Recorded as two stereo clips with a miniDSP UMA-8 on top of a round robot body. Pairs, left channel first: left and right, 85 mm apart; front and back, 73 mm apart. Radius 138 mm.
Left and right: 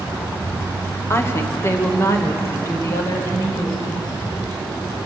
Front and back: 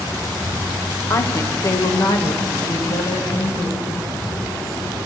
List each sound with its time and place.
1.1 s a woman speaking: 35° left, 1.4 m; by 4.0 s 40° left, 3.5 m